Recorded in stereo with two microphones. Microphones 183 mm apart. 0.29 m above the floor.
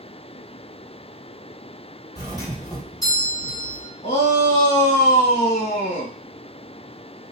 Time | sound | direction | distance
2.1 | a doorbell | 20° left (ahead or behind) | 2 m
4.0 | a shout | 45° left (ahead or behind) | 1.9 m